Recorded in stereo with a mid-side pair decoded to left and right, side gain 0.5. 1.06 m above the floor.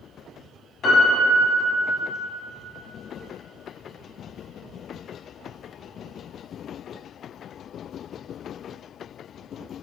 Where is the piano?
55° left, 1.3 m.